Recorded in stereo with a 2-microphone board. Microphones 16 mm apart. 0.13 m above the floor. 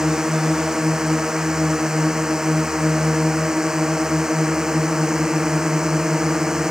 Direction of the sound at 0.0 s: 30° right (ahead or behind).